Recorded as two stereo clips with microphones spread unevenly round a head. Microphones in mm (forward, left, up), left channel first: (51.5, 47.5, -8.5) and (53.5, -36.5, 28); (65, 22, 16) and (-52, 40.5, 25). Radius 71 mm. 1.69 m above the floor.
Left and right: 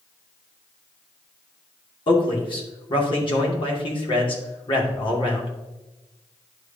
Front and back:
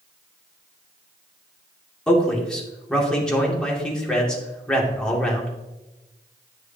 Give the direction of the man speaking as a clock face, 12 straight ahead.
10 o'clock.